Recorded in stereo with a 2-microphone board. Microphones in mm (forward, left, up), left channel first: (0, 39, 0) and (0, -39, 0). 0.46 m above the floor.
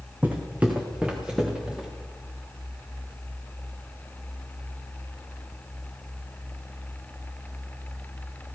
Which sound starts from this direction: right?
Footsteps, at 0.2 s.